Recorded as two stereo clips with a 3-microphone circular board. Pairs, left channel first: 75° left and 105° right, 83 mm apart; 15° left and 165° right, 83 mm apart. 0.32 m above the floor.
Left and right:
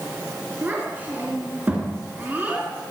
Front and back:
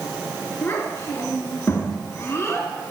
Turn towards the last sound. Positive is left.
turn(degrees=-40)